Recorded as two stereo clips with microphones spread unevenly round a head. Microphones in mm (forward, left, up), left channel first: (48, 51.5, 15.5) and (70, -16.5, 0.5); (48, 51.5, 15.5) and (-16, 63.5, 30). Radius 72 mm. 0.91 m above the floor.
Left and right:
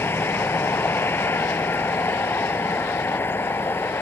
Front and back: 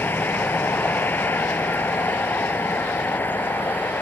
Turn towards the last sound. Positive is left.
turn(degrees=50)